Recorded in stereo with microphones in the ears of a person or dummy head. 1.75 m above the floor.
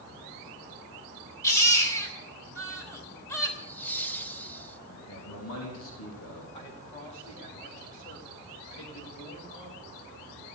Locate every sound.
1.4 s a baby crying: 15° left (ahead or behind), 3 m
3.6 s laughter: 15° left (ahead or behind), 1.8 m
4.9 s a man speaking: 85° left, 3.5 m
6.5 s a man speaking: 25° left (ahead or behind), 3 m